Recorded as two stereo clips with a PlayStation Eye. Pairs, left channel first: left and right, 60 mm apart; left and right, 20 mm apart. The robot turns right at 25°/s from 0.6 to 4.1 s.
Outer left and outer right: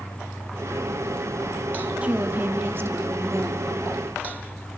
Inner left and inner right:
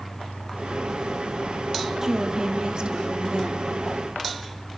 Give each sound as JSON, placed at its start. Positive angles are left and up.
{"t": 2.0, "sound": "a woman speaking", "azimuth_deg": -155, "distance_m": 2.0}